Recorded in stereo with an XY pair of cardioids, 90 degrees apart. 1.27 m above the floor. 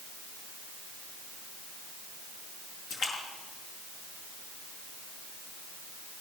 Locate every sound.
2.9 s a splash: 70° left, 5.5 m